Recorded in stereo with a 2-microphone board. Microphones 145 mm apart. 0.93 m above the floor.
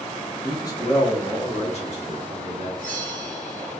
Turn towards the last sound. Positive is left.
turn(degrees=65)  # may be behind; listen again after turning